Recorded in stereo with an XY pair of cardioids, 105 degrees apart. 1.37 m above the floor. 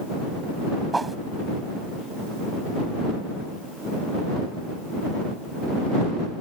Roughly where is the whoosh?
Ahead.